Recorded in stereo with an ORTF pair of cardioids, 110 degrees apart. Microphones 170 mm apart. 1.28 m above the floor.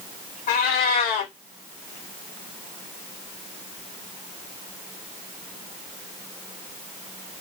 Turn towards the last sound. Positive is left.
turn(degrees=70)